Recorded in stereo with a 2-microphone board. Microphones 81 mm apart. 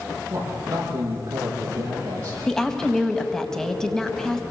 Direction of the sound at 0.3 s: 40° right (ahead or behind).